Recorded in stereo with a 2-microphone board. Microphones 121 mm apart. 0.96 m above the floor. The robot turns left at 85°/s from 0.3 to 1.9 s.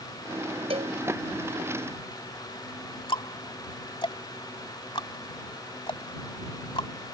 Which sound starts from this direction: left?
Ticking, at 3.1 s.